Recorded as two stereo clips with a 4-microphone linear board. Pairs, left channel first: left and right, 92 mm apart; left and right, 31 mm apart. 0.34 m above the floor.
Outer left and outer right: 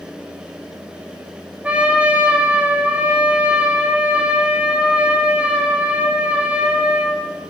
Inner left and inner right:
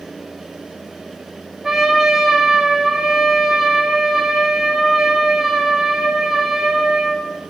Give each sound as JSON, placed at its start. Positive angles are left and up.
{"t": 1.6, "sound": "a trumpet", "side_deg": -15, "distance_m": 0.9}